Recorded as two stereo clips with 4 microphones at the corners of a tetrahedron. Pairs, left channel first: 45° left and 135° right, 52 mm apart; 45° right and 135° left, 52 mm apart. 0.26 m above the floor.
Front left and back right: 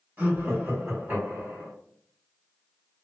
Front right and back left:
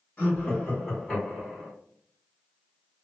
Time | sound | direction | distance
0.2 | laughter | 105° right | 2.0 m